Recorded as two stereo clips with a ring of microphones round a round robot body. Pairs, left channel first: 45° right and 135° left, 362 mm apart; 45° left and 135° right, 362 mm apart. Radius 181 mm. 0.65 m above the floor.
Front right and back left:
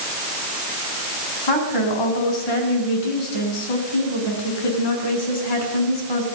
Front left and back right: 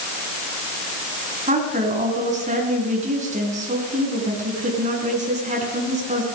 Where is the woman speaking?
65° right, 7 m.